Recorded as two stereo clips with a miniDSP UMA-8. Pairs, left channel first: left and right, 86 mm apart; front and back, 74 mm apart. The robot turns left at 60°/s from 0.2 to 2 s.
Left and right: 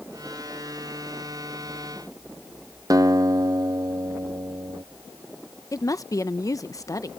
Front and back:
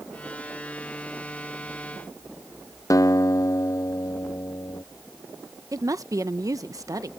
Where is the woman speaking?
140° left.